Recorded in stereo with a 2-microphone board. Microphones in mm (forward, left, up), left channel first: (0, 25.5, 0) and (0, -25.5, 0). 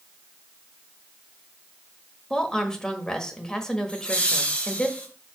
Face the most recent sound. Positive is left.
turn(degrees=25)  # may be behind; listen again after turning